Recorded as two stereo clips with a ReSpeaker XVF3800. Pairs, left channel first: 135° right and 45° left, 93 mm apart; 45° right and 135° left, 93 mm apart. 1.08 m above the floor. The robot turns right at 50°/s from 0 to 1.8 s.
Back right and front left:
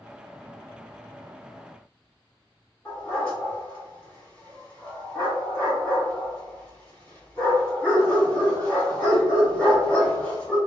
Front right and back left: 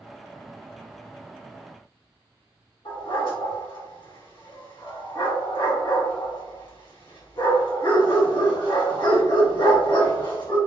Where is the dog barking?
65° right, 1.7 m.